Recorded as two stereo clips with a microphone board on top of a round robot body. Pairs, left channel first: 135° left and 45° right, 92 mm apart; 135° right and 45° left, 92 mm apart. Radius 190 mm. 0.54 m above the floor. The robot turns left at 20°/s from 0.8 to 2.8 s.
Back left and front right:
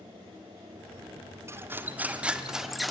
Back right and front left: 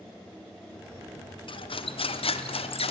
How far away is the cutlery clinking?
About 0.9 m.